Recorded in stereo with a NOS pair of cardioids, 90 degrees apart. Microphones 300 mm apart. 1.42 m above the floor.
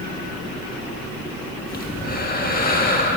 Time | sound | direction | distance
1.7 | breathing | 30° left | 1.7 m